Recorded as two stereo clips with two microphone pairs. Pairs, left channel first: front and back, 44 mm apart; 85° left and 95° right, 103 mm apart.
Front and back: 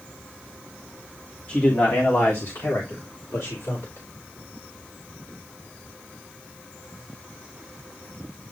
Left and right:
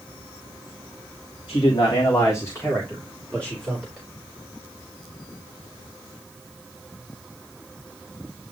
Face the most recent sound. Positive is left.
turn(degrees=0)